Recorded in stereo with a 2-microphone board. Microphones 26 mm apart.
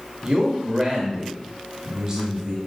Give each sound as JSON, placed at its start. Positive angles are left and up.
{"t": 0.2, "sound": "a man speaking", "side_deg": -25, "distance_m": 1.4}